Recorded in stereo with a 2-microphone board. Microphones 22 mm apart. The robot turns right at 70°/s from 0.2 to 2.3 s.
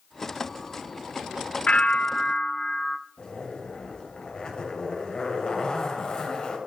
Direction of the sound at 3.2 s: 40° left (ahead or behind).